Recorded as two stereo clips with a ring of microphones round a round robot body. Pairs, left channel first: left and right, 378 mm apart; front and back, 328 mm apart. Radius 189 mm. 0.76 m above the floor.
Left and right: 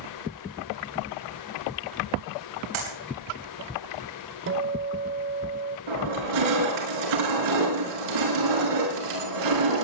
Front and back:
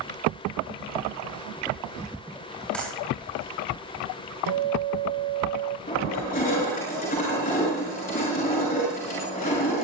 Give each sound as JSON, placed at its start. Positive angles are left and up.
{"t": 2.7, "sound": "a clap", "azimuth_deg": -85, "distance_m": 7.5}
{"t": 4.5, "sound": "a guitar", "azimuth_deg": -150, "distance_m": 0.9}
{"t": 5.9, "sound": "crushing", "azimuth_deg": -70, "distance_m": 6.5}